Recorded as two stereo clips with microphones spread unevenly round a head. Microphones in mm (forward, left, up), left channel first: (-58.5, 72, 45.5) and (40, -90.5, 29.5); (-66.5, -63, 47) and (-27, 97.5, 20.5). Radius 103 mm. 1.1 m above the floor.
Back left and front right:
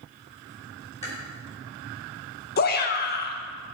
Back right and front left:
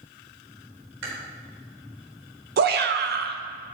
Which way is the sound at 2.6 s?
80° left.